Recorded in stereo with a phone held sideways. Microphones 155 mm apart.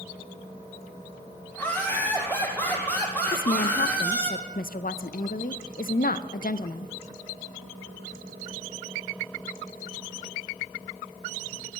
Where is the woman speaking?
65° left (ahead or behind), 0.5 m.